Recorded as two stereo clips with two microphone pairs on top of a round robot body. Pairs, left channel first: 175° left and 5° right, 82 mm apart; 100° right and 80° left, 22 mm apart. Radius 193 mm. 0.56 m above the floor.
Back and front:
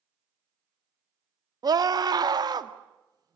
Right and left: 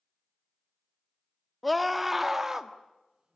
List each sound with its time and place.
1.6 s a scream: 20° right, 2 m; by 3.4 s 20° left, 2 m